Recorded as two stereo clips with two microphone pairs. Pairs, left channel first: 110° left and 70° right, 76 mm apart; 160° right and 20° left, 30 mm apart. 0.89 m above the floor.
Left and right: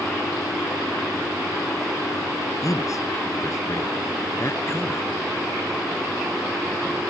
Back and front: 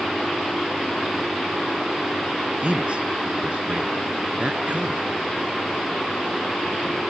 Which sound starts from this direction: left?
A man speaking, at 2.6 s.